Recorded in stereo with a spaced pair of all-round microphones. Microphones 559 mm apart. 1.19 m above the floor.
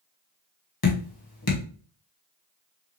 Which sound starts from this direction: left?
Dripping, at 0.8 s.